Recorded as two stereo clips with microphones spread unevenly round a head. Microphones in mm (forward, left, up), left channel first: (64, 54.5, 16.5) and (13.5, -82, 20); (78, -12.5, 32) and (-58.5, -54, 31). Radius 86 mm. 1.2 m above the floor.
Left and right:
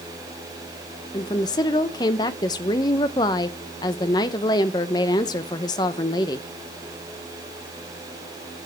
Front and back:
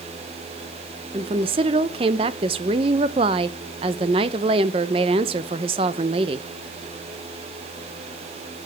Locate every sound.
1.1 s a woman speaking: 140° left, 0.7 m